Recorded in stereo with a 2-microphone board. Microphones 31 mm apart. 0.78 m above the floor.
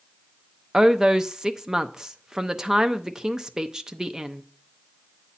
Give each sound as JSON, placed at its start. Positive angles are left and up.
{"t": 0.7, "sound": "a woman speaking", "side_deg": -20, "distance_m": 0.7}